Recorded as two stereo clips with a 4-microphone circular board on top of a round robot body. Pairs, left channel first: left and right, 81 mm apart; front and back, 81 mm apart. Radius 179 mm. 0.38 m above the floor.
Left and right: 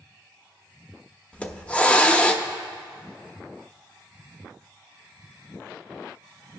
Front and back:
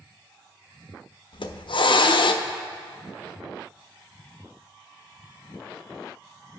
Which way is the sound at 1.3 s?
15° left.